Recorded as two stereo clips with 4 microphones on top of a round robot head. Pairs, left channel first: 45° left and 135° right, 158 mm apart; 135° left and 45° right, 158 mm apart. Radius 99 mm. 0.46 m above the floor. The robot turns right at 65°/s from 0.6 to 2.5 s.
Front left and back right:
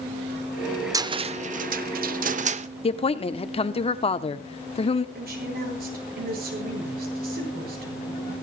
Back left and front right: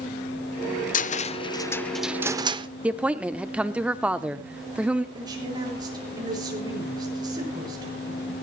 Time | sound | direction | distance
0.9 | a cupboard door | 160° left | 0.8 m
2.8 | a woman speaking | 35° left | 1.1 m
5.2 | a woman speaking | 110° right | 8 m